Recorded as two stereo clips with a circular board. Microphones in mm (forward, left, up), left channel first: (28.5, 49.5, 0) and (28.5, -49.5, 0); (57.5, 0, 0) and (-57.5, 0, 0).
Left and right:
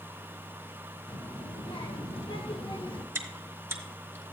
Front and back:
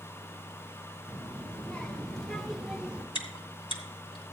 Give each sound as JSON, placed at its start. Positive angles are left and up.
{"t": 1.1, "sound": "a child speaking", "azimuth_deg": 75, "distance_m": 1.9}
{"t": 3.1, "sound": "chewing", "azimuth_deg": -25, "distance_m": 1.9}